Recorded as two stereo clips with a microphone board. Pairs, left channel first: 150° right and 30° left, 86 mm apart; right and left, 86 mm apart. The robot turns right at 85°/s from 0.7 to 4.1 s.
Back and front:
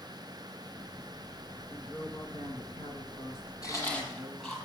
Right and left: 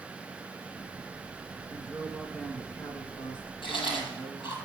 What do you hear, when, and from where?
1.7 s a woman speaking: 125° left, 3.5 m; by 4.6 s 30° right, 3.5 m
3.6 s chewing: 105° right, 6.5 m; by 4.6 s 65° right, 6.5 m